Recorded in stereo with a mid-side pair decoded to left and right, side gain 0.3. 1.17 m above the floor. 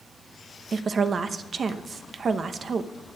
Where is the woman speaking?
65° right, 0.8 m.